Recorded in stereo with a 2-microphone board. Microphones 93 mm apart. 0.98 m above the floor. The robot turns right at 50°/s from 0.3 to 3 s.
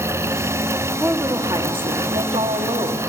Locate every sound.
1.0 s a woman speaking: 160° right, 1.3 m; by 3.0 s 60° right, 1.3 m